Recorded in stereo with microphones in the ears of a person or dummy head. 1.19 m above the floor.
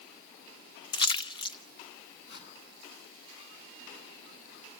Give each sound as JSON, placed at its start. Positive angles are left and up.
{"t": 0.9, "sound": "a splash", "side_deg": 35, "distance_m": 0.9}
{"t": 2.3, "sound": "a whoosh", "side_deg": 70, "distance_m": 8.0}